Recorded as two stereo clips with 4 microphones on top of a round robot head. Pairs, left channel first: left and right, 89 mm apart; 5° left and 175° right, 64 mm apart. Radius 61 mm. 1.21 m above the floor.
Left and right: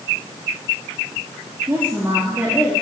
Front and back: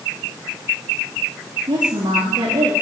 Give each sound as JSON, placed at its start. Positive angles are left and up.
{"t": 1.7, "sound": "a woman speaking", "azimuth_deg": -160, "distance_m": 3.0}